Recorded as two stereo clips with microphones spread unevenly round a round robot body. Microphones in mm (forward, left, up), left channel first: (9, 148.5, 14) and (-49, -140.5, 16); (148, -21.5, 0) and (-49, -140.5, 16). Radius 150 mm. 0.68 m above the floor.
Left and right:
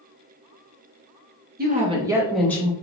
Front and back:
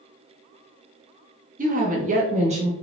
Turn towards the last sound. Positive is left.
turn(degrees=150)